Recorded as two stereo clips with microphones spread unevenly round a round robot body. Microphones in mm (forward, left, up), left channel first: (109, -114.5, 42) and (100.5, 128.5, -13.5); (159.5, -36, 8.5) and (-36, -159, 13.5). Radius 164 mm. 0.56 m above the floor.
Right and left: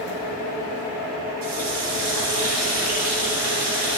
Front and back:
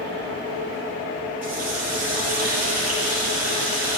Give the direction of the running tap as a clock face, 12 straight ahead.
8 o'clock.